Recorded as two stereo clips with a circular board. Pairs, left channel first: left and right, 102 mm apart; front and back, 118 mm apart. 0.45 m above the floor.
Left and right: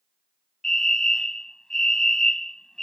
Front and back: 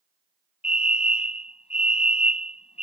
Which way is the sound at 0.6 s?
5° left.